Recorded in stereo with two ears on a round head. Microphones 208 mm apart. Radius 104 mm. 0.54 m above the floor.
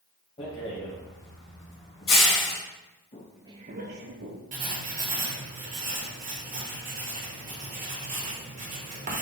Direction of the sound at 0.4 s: 25° left (ahead or behind).